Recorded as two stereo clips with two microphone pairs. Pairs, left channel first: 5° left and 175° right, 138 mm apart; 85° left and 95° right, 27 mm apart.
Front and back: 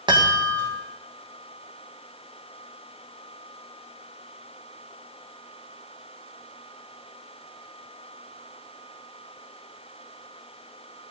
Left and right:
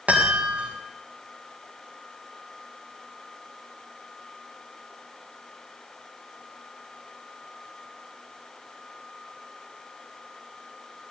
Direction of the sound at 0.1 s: 120° right.